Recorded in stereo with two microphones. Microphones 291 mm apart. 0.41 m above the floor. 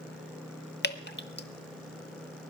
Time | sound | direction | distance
0.8 | dripping | 35° left (ahead or behind) | 1.0 m